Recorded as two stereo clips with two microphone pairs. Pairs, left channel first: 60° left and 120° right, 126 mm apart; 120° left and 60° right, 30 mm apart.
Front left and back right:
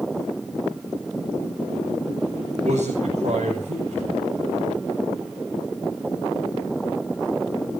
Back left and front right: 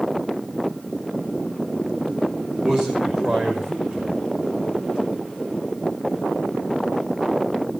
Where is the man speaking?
105° right, 6.5 m.